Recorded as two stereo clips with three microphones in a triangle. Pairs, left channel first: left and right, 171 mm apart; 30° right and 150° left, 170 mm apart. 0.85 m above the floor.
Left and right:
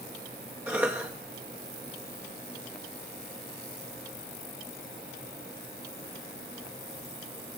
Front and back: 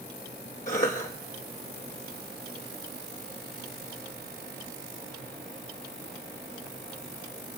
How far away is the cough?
About 0.9 m.